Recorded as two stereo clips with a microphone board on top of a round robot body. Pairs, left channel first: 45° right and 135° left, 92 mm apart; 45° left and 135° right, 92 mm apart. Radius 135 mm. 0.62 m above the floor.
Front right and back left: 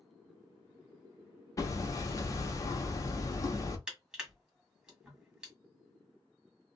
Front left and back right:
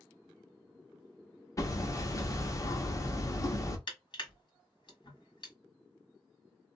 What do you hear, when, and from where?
1.6 s hammering: straight ahead, 0.9 m
3.9 s crushing: 55° left, 1.7 m